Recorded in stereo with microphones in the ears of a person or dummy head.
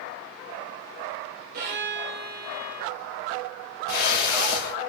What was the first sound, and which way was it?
A violin, 65° right (ahead or behind).